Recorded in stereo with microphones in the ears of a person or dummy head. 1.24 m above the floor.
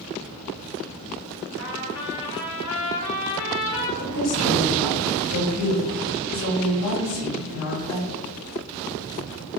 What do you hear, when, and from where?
1.6 s a trumpet: 75° left (ahead or behind), 1.8 m
4.0 s a woman speaking: 75° left (ahead or behind), 1.9 m